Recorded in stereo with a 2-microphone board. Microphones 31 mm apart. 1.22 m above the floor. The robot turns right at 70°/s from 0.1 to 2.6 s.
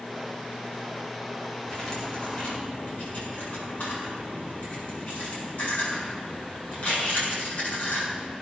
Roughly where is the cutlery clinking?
Centre.